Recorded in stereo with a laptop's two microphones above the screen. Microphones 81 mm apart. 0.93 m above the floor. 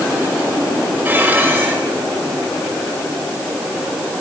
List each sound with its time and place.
1.1 s dishes clattering: 25° right (ahead or behind), 3 m